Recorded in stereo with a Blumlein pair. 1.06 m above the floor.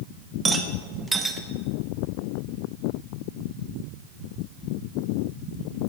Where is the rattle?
10° right, 1.3 m.